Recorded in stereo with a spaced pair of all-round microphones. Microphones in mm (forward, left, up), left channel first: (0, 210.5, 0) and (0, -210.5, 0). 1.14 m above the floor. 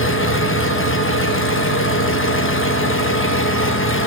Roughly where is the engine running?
Left.